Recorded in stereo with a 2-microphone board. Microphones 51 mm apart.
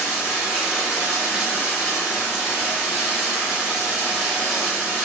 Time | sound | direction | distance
0.0 | running water | 10° right (ahead or behind) | 1.2 m